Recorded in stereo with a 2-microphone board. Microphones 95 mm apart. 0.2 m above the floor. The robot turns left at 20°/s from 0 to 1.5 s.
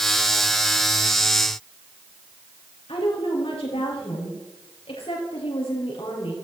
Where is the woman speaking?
70° left (ahead or behind), 5 m.